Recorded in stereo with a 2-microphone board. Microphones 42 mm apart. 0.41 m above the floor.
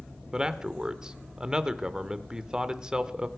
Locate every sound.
0.3 s a man speaking: 20° right (ahead or behind), 0.8 m